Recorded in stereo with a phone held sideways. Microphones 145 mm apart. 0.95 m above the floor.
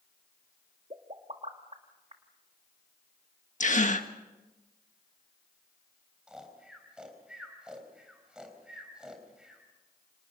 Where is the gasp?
55° left (ahead or behind), 1.4 m.